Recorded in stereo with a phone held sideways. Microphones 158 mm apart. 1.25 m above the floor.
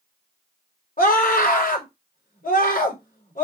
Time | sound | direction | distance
1.0 | a scream | 60° left (ahead or behind) | 5 m